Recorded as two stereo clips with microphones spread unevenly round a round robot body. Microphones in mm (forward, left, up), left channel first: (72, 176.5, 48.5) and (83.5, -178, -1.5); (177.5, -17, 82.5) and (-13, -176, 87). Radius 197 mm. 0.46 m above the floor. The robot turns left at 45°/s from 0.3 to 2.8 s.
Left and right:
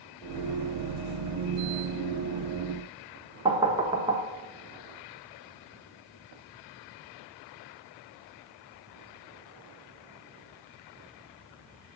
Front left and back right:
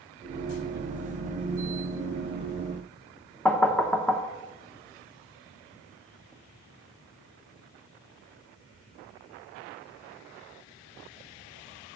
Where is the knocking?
40° right, 0.8 m.